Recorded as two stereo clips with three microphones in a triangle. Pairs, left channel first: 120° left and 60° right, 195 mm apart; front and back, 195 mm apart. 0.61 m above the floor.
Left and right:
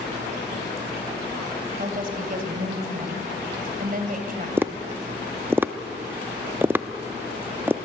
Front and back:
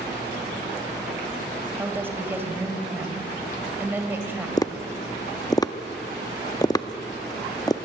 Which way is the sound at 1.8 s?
100° right.